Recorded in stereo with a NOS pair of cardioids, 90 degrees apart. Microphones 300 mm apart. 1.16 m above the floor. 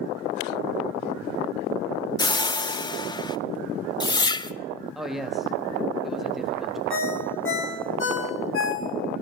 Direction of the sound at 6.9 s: 45° left.